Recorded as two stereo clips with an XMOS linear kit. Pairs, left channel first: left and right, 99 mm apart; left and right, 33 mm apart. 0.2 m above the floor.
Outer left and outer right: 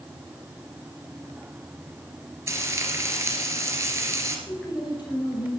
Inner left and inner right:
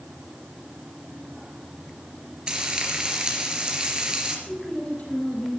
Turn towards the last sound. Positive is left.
turn(degrees=45)  # may be behind; listen again after turning